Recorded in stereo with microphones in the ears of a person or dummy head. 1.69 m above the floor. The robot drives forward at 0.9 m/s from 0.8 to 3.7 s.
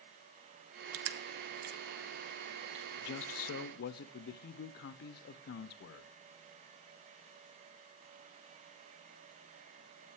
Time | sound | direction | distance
0.9 | crushing | 85° right | 0.8 m
3.0 | a man speaking | 65° left (ahead or behind) | 0.7 m